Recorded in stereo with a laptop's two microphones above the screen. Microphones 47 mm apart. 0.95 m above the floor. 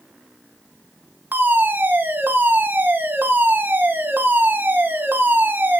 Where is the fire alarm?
45° right (ahead or behind), 2 m.